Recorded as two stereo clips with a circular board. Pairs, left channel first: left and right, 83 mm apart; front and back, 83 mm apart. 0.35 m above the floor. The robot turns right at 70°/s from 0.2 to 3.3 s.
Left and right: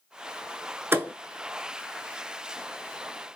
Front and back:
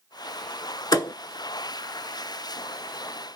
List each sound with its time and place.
0.9 s a thud: 30° right, 0.6 m; by 1.1 s 15° right, 0.6 m